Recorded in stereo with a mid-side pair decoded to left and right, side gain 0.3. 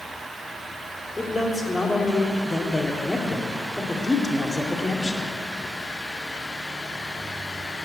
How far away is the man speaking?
About 2.5 m.